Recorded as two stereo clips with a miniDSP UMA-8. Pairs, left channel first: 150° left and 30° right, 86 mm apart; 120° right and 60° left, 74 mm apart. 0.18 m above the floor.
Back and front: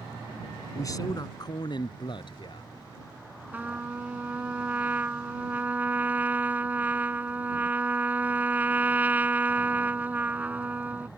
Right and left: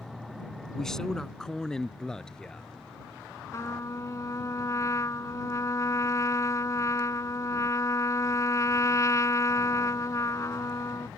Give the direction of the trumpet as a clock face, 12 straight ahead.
3 o'clock.